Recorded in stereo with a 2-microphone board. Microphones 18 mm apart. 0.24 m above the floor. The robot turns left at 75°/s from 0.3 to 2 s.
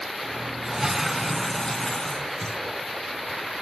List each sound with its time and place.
0.7 s a toilet flushing: 135° right, 0.5 m; by 2.6 s 125° left, 0.5 m